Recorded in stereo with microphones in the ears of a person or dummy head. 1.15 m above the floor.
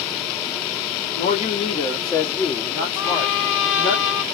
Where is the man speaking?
45° left (ahead or behind), 0.9 m; by 4.0 s 5° left (ahead or behind), 2 m.